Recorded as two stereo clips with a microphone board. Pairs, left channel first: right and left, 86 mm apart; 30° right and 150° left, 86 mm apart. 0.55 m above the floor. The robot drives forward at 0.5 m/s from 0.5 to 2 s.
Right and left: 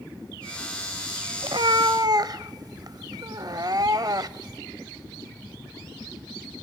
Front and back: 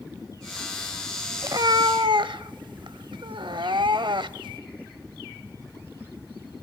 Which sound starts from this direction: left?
A cat meowing, at 1.4 s.